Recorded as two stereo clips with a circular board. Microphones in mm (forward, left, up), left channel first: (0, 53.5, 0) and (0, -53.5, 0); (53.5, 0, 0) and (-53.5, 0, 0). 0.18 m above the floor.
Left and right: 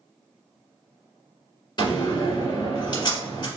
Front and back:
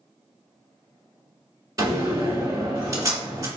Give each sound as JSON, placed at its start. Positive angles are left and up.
{"t": 1.8, "sound": "a door slam", "azimuth_deg": 130, "distance_m": 1.6}